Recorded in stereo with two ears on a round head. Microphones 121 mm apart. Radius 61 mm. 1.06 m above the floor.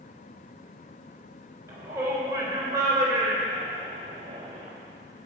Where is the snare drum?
No snare drum in this recording.